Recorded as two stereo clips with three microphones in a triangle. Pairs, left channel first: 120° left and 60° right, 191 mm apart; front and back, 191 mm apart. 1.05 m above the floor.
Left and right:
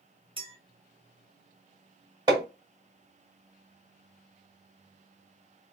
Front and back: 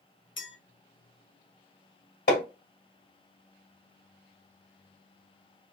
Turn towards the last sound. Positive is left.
turn(degrees=5)